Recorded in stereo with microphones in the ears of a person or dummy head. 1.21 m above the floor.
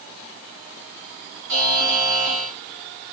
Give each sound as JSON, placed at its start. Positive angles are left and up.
{"t": 1.5, "sound": "a buzzer", "side_deg": -75, "distance_m": 2.5}